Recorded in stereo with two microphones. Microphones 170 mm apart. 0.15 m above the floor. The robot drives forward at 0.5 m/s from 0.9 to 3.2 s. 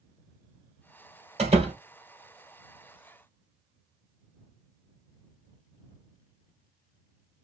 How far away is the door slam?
About 2.5 m.